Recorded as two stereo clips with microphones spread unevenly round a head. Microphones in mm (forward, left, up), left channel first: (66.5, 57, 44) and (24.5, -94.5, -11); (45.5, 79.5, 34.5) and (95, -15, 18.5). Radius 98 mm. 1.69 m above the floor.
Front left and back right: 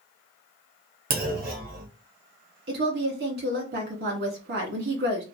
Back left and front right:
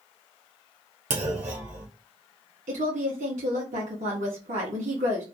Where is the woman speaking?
80° right, 1.5 m.